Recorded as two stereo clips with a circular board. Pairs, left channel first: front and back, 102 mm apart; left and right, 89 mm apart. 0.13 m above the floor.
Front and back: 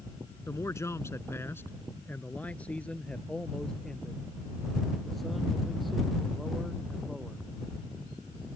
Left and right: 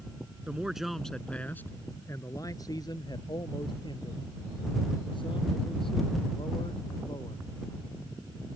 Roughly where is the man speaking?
Ahead right.